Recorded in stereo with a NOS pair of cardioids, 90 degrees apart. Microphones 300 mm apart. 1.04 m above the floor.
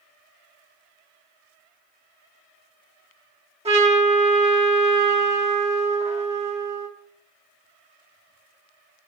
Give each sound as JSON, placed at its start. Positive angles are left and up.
{"t": 3.6, "sound": "a trumpet", "azimuth_deg": -20, "distance_m": 1.4}